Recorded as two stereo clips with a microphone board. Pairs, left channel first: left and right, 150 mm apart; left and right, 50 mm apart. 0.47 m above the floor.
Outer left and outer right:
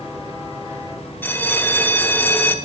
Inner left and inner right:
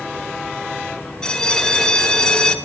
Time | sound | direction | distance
1.2 | a bell | 15° left (ahead or behind) | 0.8 m